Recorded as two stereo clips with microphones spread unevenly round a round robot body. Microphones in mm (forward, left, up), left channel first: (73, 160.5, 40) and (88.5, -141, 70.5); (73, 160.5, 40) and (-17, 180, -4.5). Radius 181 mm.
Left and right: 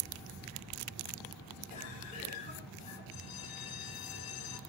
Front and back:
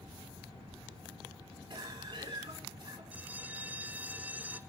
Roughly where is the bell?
Left.